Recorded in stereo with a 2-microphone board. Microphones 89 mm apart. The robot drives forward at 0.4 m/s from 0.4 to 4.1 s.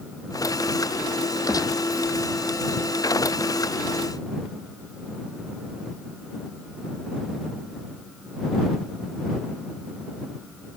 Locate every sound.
1.5 s a gunshot: 45° left (ahead or behind)